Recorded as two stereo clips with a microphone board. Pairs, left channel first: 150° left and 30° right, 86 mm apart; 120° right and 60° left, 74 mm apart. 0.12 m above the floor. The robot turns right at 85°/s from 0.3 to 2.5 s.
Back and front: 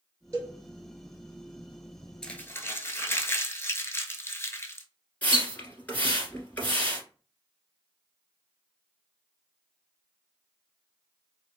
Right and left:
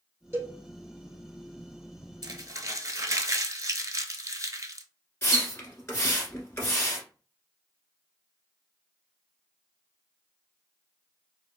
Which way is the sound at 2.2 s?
70° left.